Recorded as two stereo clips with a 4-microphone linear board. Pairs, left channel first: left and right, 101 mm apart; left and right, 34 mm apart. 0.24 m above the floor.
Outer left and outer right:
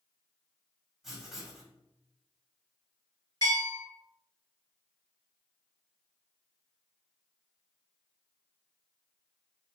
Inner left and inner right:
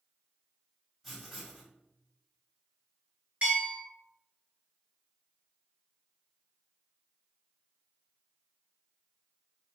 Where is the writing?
5° right (ahead or behind), 1.5 m.